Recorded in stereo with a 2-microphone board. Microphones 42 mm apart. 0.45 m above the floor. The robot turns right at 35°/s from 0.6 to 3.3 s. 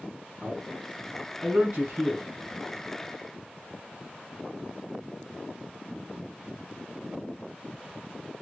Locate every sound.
0.4 s a man speaking: 10° right (ahead or behind), 4 m; by 2.3 s 65° right (ahead or behind), 4 m